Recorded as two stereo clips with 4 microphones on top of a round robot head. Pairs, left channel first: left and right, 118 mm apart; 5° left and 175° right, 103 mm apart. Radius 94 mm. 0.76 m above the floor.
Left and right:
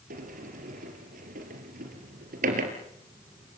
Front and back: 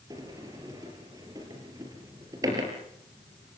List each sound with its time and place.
0.1 s a sliding door: 105° right, 4 m